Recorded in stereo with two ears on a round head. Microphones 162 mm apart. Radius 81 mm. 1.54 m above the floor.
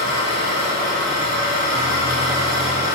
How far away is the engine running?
About 5.5 m.